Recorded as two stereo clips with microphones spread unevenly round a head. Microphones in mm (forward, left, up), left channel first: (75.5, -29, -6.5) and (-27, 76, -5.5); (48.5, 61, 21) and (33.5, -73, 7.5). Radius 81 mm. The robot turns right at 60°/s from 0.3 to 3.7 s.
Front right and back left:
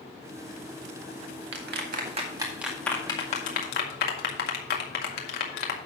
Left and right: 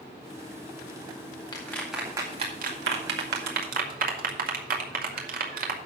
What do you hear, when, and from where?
1.5 s a clap: 150° left, 2.0 m; by 5.8 s 80° right, 2.0 m